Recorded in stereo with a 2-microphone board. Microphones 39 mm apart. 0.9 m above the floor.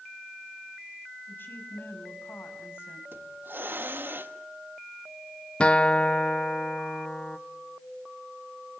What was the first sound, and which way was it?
A woman speaking, 65° left (ahead or behind).